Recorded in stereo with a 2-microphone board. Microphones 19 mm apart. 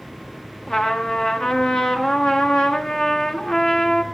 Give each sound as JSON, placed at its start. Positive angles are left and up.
{"t": 0.7, "sound": "a trumpet", "side_deg": 55, "distance_m": 1.6}